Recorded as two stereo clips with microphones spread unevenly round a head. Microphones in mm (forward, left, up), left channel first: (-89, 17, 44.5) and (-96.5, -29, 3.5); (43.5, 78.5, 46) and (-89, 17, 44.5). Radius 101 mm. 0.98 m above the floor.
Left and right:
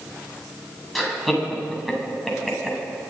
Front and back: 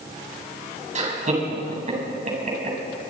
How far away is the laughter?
About 8 m.